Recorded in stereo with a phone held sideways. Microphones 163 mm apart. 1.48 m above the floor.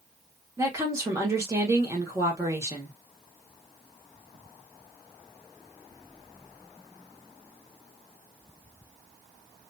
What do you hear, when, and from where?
0.6 s a woman speaking: 15° right (ahead or behind), 1.1 m